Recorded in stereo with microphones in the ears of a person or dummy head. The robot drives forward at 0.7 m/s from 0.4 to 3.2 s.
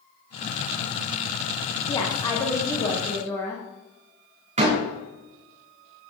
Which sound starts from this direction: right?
A door slam, at 4.6 s.